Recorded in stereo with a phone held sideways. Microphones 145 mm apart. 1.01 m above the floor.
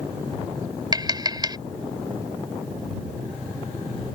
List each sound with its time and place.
0.9 s tapping: 30° right (ahead or behind)